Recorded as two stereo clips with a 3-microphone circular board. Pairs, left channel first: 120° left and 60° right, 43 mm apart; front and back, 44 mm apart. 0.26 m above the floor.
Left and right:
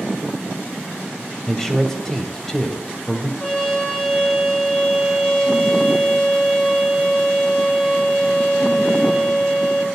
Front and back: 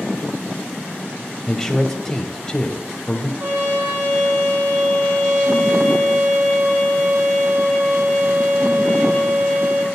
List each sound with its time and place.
1.5 s a man speaking: 60° left, 1.2 m
3.4 s a trumpet: 170° right, 3.5 m